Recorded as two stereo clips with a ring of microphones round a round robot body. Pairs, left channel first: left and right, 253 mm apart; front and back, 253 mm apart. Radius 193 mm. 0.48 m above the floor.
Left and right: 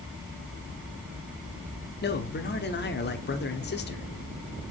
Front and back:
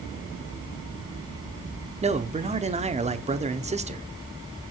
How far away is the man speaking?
About 1.1 m.